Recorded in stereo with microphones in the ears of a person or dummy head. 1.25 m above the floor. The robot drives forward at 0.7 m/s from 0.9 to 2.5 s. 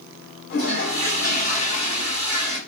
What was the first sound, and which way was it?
A toilet flushing, 45° left (ahead or behind).